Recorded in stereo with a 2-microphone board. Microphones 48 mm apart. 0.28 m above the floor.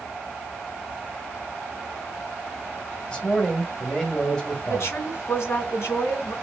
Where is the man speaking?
20° left (ahead or behind), 1.4 m.